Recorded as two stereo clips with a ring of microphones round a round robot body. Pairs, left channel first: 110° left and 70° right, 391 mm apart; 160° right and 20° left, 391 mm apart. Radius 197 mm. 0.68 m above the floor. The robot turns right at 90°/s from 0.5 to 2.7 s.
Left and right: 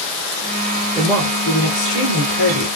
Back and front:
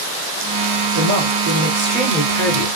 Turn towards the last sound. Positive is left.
turn(degrees=175)